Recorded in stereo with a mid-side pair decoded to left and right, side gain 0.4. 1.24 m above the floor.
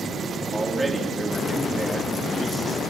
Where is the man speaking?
15° right, 2.5 m.